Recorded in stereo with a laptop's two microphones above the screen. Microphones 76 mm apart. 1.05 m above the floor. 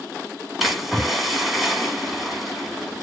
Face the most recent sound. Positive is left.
turn(degrees=0)  # may be behind; listen again after turning